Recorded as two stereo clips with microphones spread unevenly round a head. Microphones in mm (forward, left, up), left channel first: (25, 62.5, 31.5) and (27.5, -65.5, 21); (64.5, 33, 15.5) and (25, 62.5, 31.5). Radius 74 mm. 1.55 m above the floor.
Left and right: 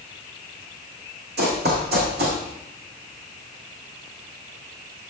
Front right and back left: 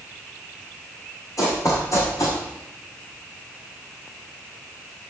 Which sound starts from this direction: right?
Running footsteps, at 1.4 s.